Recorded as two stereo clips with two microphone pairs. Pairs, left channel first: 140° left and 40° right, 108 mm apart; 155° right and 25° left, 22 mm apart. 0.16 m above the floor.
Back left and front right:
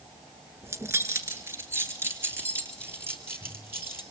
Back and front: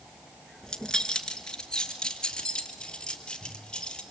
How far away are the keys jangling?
About 1.6 m.